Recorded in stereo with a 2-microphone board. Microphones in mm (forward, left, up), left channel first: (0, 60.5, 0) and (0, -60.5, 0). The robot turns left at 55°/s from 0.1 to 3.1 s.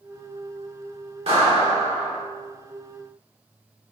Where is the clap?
125° right, 1.1 m; by 2.2 s 175° right, 1.1 m.